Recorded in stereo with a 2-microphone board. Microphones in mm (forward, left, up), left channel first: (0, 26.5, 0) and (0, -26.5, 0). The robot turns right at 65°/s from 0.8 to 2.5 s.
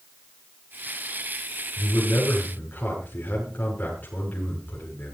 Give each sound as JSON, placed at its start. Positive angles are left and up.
{"t": 1.8, "sound": "a man speaking", "azimuth_deg": 100, "distance_m": 7.0}